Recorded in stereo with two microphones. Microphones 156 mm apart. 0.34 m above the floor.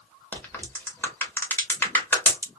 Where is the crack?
10° left (ahead or behind), 0.9 m.